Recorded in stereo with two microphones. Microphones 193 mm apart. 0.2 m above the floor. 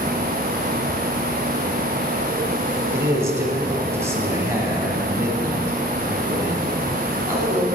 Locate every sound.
2.9 s a man speaking: 15° right (ahead or behind), 1.1 m